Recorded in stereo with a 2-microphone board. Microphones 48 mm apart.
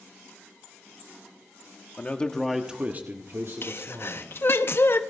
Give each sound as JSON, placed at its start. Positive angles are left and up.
{"t": 2.0, "sound": "a man speaking", "side_deg": 30, "distance_m": 1.4}
{"t": 3.6, "sound": "a sneeze", "side_deg": 50, "distance_m": 0.7}